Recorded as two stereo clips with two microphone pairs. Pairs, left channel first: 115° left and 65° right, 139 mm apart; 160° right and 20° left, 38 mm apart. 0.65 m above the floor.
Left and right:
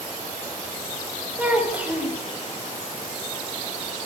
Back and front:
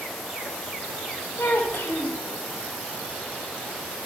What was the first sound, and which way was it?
A child speaking, 145° right.